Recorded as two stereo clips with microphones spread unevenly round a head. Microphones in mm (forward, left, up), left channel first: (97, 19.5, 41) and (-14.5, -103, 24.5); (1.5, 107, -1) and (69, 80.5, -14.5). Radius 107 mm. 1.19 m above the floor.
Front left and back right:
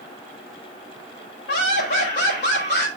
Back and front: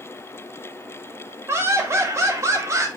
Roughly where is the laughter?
Ahead left.